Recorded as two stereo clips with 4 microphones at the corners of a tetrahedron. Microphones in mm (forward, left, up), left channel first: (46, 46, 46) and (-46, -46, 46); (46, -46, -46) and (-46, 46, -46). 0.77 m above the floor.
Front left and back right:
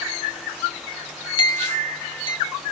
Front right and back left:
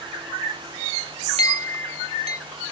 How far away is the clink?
About 0.8 m.